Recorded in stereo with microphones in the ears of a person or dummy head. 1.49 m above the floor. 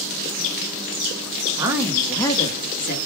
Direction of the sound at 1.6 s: 20° right (ahead or behind).